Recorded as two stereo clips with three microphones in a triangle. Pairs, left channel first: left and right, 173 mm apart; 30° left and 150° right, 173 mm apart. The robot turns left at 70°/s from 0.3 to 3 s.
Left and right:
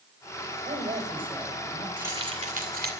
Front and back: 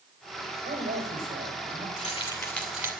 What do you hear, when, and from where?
0.7 s a woman speaking: 125° right, 4 m; by 1.9 s 150° left, 4 m
2.0 s keys jangling: 10° right, 2.5 m; by 2.9 s 75° right, 2.5 m